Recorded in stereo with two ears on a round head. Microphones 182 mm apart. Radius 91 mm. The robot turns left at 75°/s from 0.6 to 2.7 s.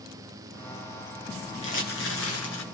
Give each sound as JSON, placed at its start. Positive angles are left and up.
{"t": 1.6, "sound": "crumpling", "azimuth_deg": 145, "distance_m": 4.0}